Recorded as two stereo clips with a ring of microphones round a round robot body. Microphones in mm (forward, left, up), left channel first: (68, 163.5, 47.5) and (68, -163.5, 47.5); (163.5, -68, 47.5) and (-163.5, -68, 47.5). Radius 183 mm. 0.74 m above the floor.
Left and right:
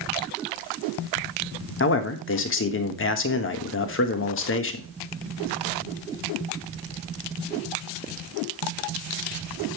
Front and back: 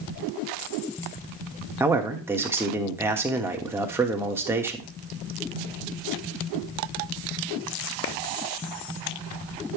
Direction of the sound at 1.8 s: 100° left.